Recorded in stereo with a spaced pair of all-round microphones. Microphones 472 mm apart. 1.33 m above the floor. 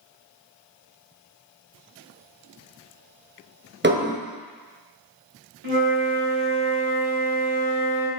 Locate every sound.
3.8 s dishes clattering: 25° right (ahead or behind), 0.9 m
5.6 s a flute: 70° right (ahead or behind), 3 m